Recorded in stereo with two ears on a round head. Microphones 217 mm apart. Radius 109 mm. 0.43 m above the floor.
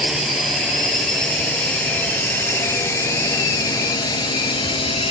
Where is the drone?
Centre (ahead or behind); by 5.1 s 25° left (ahead or behind).